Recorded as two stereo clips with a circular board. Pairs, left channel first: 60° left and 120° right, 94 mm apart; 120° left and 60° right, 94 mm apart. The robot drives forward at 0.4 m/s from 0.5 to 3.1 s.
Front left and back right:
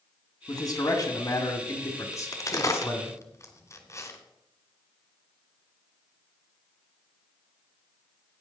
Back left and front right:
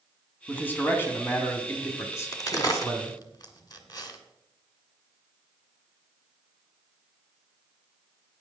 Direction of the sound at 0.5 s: 55° left.